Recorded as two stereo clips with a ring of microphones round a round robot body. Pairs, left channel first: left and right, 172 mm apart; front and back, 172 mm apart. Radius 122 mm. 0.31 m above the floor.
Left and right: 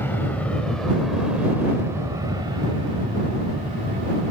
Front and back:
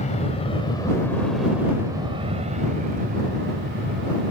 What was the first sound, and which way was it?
An aircraft, 15° left.